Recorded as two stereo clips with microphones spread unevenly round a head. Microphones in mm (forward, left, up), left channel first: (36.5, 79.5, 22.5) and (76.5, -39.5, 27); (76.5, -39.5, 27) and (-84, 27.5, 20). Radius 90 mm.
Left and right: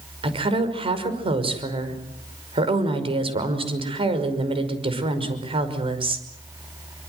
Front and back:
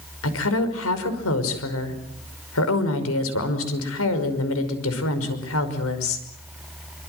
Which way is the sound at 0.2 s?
25° right.